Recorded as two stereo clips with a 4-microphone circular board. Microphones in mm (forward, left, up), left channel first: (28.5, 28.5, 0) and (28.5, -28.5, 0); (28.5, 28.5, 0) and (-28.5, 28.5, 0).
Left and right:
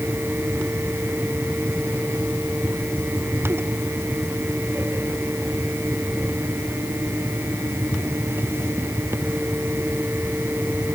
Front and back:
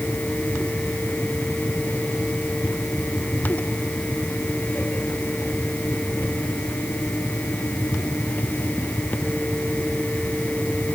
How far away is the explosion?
I don't hear an explosion.